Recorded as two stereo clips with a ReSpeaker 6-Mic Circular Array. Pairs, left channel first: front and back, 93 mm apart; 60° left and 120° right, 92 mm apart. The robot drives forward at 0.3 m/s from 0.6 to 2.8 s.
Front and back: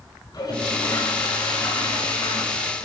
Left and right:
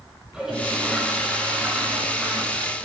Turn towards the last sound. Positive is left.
turn(degrees=-40)